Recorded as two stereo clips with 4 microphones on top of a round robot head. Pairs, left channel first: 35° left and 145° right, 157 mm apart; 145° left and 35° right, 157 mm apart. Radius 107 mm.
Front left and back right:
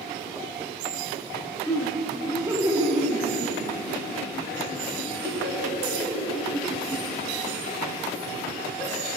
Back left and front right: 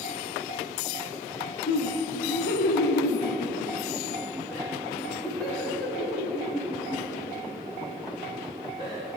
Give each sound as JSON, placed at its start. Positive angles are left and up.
{"t": 1.7, "sound": "laughter", "azimuth_deg": 110, "distance_m": 1.1}